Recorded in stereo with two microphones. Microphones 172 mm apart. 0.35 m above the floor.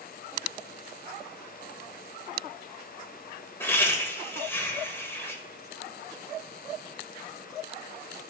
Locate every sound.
3.6 s laughter: 15° left (ahead or behind), 1.1 m